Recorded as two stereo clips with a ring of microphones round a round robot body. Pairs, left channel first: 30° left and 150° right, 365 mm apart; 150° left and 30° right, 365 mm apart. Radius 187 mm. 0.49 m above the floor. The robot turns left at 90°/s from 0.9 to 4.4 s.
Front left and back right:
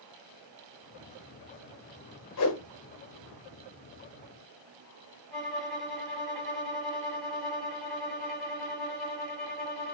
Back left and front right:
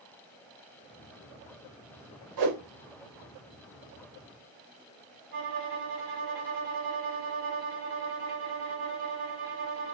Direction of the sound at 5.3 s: 60° right.